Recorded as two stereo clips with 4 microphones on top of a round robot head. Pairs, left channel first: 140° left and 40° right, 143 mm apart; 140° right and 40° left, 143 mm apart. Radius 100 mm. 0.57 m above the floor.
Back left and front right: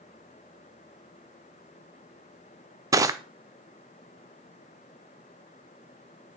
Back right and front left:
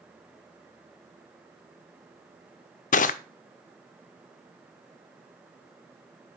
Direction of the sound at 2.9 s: 105° right.